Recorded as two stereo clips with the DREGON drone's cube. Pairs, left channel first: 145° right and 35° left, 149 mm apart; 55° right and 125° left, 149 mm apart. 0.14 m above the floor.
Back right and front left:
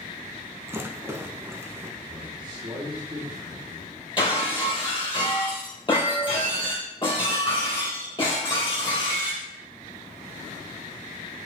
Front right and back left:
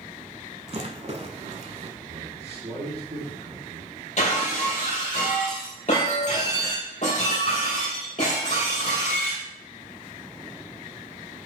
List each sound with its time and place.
0.7 s a rattle: 100° left, 0.9 m
2.0 s a man speaking: 90° left, 3 m
4.2 s breaking glass: 90° right, 3.5 m